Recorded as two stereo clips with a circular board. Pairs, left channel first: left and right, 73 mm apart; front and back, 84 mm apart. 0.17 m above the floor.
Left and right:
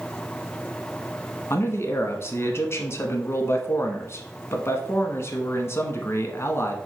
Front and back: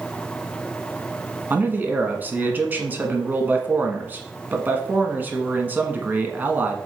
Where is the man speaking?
120° left, 1.3 m.